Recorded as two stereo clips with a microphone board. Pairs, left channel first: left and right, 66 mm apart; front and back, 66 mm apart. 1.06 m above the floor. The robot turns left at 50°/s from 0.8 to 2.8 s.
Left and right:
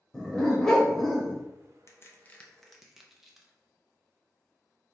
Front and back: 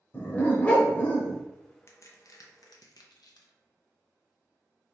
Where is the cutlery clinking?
I don't hear cutlery clinking.